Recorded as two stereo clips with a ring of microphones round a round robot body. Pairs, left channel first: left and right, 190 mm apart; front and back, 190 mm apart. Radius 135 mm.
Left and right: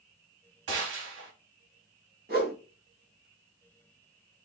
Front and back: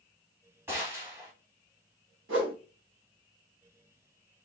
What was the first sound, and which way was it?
A gunshot, 95° right.